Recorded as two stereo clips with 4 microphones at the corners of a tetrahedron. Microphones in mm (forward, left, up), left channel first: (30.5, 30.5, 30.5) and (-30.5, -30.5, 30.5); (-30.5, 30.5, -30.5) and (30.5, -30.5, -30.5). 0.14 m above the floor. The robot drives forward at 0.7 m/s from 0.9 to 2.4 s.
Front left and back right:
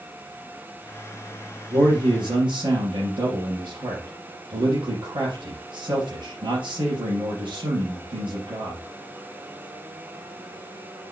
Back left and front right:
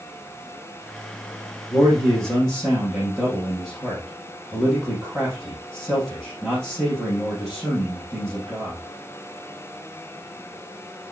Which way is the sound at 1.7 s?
130° right.